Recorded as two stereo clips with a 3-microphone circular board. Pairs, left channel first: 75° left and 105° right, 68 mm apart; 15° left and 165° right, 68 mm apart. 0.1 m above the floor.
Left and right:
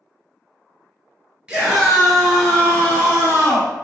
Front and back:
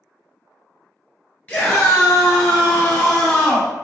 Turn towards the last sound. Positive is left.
turn(degrees=100)